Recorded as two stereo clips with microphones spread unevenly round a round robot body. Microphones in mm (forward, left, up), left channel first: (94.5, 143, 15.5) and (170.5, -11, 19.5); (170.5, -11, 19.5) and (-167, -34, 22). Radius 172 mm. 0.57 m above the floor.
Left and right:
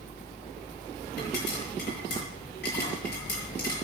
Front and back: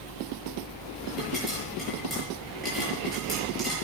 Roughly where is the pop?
Left.